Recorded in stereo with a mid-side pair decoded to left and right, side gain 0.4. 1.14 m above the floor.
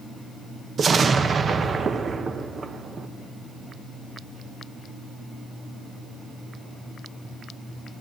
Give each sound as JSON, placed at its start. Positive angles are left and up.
{"t": 0.8, "sound": "an explosion", "azimuth_deg": -50, "distance_m": 0.7}